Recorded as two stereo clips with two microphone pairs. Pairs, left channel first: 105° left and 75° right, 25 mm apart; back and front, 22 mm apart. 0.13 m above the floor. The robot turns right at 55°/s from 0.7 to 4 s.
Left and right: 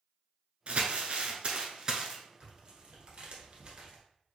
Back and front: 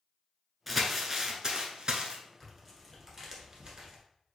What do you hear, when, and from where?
0.7 s crumpling: 90° right, 0.8 m; by 2.2 s 5° right, 0.8 m
2.4 s tearing paper: 110° right, 1.5 m; by 4.0 s 20° right, 1.5 m